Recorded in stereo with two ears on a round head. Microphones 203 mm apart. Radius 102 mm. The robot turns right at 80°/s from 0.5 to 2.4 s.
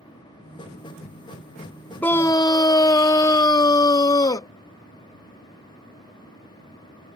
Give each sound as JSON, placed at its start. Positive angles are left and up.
{"t": 2.0, "sound": "a scream", "side_deg": 10}